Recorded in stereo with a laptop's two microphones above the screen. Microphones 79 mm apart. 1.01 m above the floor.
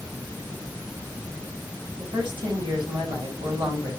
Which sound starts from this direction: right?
A woman speaking, at 2.0 s.